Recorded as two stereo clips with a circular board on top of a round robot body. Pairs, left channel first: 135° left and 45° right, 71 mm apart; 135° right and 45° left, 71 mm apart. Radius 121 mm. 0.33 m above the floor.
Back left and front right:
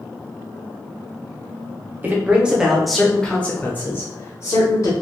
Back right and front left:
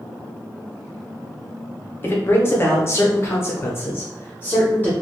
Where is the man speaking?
95° right, 1.1 m; by 4.9 s 170° left, 1.6 m.